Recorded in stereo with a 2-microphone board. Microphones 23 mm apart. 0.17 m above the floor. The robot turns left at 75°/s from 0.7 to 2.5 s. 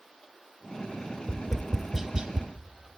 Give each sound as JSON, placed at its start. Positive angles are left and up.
{"t": 1.3, "sound": "tapping", "side_deg": 35, "distance_m": 0.8}